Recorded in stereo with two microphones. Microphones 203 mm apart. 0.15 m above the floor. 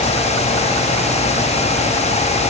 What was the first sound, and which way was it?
Only background noise.